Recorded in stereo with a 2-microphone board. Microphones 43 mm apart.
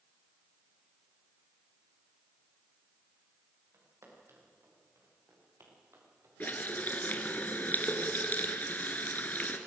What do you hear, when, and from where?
3.7 s footsteps: 75° right (ahead or behind), 7.5 m; by 6.3 s 65° right (ahead or behind), 6 m
6.4 s a running tap: 40° left (ahead or behind), 1.5 m